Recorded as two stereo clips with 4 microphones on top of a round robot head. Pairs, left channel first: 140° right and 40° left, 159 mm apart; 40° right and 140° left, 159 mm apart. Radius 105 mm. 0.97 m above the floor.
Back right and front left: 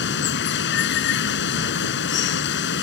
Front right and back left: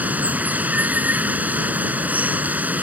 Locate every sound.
0.0 s running water: 140° right